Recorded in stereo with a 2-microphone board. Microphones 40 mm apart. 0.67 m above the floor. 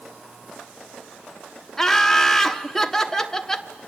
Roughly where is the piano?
I don't hear a piano.